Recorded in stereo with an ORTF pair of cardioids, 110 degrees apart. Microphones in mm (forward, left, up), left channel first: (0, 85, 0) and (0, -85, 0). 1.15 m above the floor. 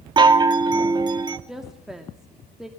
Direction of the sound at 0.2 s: 25° right.